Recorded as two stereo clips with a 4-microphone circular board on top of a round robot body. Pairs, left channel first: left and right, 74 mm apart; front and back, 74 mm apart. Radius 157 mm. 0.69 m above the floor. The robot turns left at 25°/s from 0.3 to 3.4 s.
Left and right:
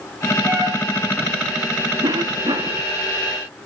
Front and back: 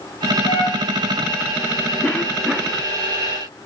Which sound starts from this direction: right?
A cough, at 2.0 s.